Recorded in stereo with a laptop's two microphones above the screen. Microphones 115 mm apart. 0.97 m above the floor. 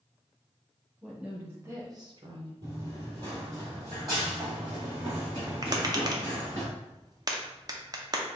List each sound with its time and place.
1.0 s a woman speaking: 10° right (ahead or behind), 1.5 m; by 2.5 s 45° right (ahead or behind), 0.8 m
2.6 s running footsteps: 30° right (ahead or behind), 1.4 m; by 6.6 s 40° right (ahead or behind), 3.5 m
5.6 s tapping: 35° right (ahead or behind), 0.6 m